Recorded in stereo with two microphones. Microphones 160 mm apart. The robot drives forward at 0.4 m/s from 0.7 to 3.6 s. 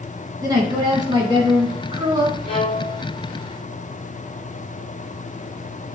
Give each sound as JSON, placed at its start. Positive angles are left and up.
{"t": 0.4, "sound": "a woman speaking", "side_deg": -25, "distance_m": 1.7}
{"t": 2.5, "sound": "a violin", "side_deg": 35, "distance_m": 1.6}